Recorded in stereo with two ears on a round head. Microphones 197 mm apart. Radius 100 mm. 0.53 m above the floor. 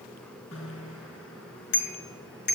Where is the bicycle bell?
60° left (ahead or behind), 5 m; by 2.5 s 50° left (ahead or behind), 5.5 m.